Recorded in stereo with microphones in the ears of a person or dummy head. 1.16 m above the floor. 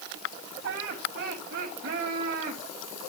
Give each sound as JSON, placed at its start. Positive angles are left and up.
{"t": 0.6, "sound": "laughter", "side_deg": -60, "distance_m": 7.0}